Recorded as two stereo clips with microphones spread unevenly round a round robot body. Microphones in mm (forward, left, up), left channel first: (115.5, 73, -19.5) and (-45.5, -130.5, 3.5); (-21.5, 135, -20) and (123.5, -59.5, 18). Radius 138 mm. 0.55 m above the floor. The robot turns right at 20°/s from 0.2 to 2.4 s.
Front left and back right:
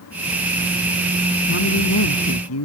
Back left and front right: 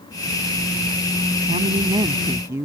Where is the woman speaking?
5° left; by 2.6 s 25° left.